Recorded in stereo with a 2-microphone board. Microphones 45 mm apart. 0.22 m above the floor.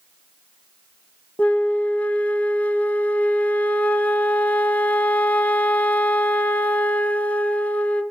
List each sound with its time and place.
1.4 s a flute: 35° left (ahead or behind), 0.6 m